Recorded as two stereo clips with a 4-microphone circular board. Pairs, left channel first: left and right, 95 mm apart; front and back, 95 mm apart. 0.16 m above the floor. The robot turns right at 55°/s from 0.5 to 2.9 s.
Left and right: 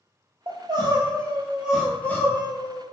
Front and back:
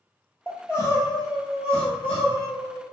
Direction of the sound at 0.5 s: 70° right.